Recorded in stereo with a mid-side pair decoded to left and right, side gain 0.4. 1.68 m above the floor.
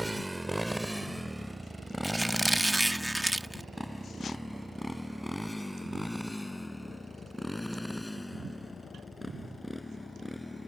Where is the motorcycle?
10° right; by 10.7 s 10° left.